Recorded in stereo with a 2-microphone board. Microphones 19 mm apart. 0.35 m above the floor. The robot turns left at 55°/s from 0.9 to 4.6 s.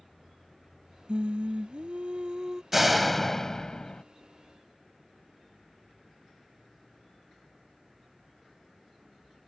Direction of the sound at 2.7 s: 175° right.